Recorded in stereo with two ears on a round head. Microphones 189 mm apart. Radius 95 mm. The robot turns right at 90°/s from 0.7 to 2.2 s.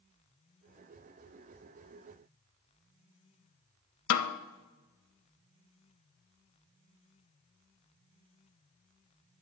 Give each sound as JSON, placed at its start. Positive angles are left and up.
{"t": 4.1, "sound": "a snare drum", "side_deg": 75, "distance_m": 0.7}